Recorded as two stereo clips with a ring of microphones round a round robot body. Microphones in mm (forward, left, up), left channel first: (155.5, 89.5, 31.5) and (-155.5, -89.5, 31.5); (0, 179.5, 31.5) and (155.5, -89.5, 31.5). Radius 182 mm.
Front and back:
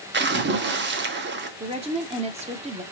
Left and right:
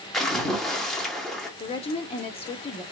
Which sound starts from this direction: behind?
A woman speaking, at 1.6 s.